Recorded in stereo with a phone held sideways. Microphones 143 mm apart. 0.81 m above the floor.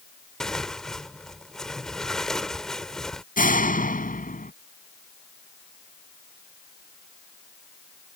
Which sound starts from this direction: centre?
Tearing paper, at 0.4 s.